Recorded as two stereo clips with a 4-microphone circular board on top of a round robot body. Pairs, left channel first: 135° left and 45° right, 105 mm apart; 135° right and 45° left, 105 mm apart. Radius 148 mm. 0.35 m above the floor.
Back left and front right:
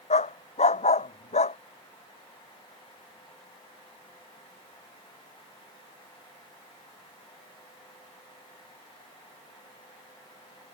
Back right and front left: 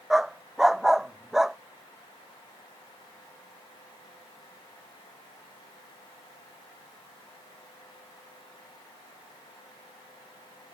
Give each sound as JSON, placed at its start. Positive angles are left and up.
{"t": 0.1, "sound": "a dog barking", "azimuth_deg": 130}